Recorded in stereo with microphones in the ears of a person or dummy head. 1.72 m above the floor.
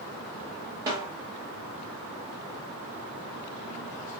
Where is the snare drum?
15° right (ahead or behind), 0.8 m.